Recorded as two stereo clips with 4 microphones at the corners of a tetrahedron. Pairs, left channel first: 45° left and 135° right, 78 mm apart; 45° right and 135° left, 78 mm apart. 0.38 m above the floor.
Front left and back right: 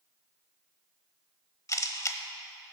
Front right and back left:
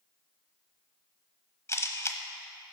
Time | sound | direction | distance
1.7 | a camera shutter | 5° left | 0.9 m